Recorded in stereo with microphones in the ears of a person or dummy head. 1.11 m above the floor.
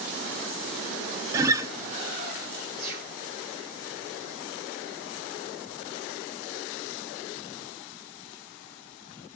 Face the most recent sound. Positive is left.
turn(degrees=-50)  # may be behind; listen again after turning